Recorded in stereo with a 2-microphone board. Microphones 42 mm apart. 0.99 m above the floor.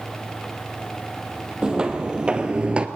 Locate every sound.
1.6 s footsteps: 20° right (ahead or behind), 1.9 m; by 2.9 s 25° right (ahead or behind), 1.0 m